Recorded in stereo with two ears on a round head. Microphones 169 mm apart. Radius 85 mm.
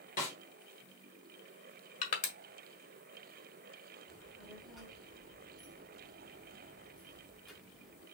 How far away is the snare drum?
About 3.5 m.